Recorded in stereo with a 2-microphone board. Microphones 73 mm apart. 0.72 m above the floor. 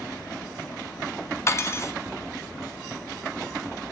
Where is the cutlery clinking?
35° left (ahead or behind), 0.6 m.